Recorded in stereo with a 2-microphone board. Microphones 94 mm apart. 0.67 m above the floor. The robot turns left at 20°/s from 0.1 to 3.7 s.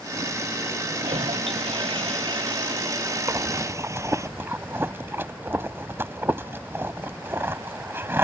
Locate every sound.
1.0 s a toilet flushing: 95° right; by 4.3 s 150° right
3.3 s breathing: 30° right (ahead or behind); by 8.2 s 25° right (ahead or behind)